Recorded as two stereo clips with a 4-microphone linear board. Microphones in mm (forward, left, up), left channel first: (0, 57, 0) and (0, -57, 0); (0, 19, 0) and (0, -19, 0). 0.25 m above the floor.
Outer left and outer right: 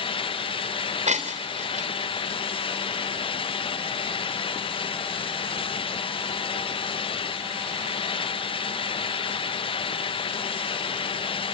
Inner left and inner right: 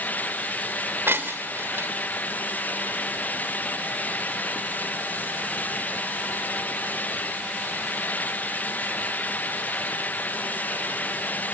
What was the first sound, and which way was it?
Breaking glass, 70° right (ahead or behind).